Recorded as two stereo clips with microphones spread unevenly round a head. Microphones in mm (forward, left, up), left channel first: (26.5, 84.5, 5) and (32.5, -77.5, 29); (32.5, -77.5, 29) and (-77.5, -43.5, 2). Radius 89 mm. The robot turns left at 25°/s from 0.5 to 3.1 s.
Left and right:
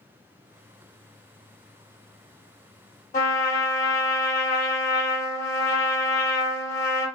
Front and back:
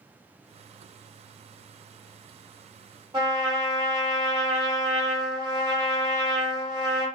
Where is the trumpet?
115° left, 1.8 m.